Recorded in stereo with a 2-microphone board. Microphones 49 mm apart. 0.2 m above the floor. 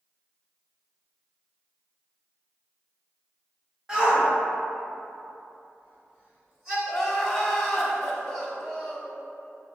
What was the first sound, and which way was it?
A shout, 15° right (ahead or behind).